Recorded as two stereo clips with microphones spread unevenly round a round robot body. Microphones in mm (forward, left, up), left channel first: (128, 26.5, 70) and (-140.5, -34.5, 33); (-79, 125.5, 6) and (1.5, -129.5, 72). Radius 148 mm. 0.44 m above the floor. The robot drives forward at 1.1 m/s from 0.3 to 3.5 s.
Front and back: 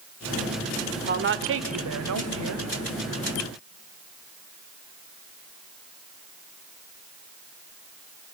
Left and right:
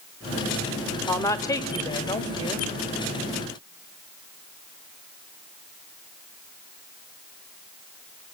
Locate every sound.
1.1 s a woman speaking: 170° left, 1.2 m; by 2.7 s 175° left, 3 m